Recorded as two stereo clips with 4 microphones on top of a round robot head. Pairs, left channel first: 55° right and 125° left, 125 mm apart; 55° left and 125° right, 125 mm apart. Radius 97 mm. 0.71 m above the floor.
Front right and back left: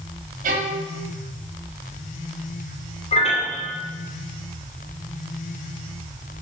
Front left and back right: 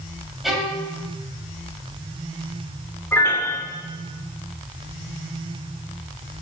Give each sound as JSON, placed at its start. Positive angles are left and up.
{"t": 0.4, "sound": "a violin", "azimuth_deg": 145, "distance_m": 1.9}
{"t": 3.1, "sound": "a piano", "azimuth_deg": -20, "distance_m": 3.0}